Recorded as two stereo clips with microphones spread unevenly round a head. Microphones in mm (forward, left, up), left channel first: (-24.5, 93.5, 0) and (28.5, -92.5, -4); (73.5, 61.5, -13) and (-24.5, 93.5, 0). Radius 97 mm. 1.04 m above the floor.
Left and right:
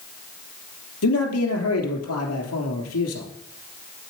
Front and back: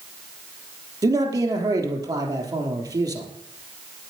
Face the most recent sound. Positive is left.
turn(degrees=110)